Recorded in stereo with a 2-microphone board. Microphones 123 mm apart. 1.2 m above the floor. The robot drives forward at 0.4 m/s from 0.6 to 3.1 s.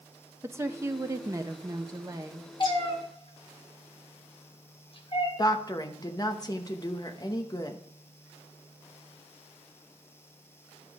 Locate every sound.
0.4 s a woman speaking: 20° right (ahead or behind), 0.7 m; by 2.5 s 25° right (ahead or behind), 0.6 m
2.6 s a cat meowing: 40° left (ahead or behind), 1.6 m; by 5.3 s 45° left (ahead or behind), 1.5 m
5.4 s a woman speaking: 30° left (ahead or behind), 1.0 m